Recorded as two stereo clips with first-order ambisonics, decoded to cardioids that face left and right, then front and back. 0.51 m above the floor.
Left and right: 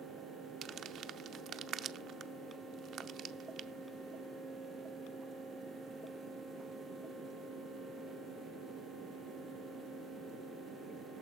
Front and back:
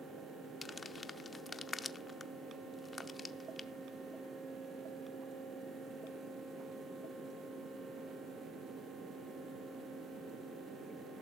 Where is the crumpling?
65° right, 0.6 m.